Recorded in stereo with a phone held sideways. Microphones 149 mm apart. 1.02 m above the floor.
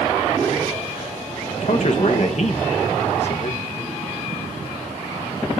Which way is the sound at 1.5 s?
55° left (ahead or behind).